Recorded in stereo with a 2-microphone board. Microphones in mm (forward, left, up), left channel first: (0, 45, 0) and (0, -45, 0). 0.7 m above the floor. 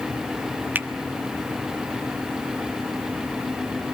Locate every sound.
0.8 s a finger snap: 20° right (ahead or behind), 1.1 m